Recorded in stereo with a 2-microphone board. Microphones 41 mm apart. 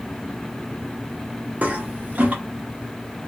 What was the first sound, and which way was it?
A toilet flushing, 40° right (ahead or behind).